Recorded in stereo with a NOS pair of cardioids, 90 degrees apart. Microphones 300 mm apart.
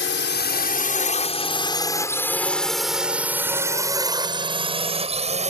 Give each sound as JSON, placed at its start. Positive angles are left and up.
{"t": 0.0, "sound": "a drone", "azimuth_deg": 40}